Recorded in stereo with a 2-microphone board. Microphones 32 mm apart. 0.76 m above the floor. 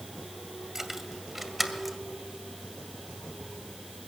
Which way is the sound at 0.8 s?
10° right (ahead or behind).